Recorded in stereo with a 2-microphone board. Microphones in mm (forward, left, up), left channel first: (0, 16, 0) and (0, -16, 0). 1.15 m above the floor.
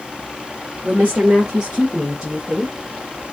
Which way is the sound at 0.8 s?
65° right (ahead or behind).